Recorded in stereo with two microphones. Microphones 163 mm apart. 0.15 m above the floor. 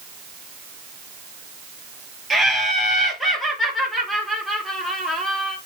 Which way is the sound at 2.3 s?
Centre (ahead or behind).